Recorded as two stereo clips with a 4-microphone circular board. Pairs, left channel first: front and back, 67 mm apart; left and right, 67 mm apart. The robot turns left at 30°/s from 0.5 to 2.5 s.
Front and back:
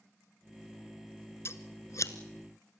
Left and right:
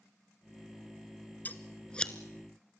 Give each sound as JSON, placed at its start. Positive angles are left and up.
{"t": 1.4, "sound": "scissors", "azimuth_deg": 35, "distance_m": 0.9}